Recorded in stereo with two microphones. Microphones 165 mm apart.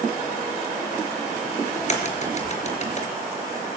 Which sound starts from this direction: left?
A crack, at 1.8 s.